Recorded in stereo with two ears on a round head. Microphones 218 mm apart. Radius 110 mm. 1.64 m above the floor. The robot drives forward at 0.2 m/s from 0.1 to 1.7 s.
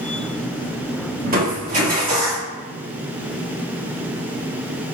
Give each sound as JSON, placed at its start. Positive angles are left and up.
{"t": 1.2, "sound": "crushing", "side_deg": -40, "distance_m": 1.4}